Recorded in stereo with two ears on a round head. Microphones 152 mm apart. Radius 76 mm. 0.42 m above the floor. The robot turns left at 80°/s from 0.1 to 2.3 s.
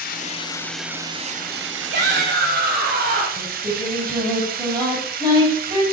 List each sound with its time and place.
0.0 s running water: 55° left, 0.8 m; by 5.9 s 120° right, 0.8 m
1.9 s a shout: 75° right, 3 m; by 3.3 s 105° right, 3 m
3.4 s singing: 25° right (ahead or behind), 4 m